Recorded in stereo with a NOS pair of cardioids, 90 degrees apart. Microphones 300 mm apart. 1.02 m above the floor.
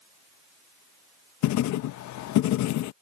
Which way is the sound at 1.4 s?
65° left.